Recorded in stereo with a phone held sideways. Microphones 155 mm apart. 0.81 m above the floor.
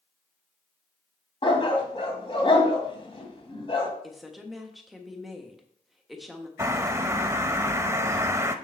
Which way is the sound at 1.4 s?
35° left (ahead or behind).